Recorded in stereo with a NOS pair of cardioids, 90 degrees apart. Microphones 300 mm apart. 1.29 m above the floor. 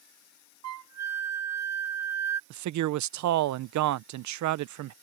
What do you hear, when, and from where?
0.6 s a flute: 60° right
2.5 s a man speaking: 70° right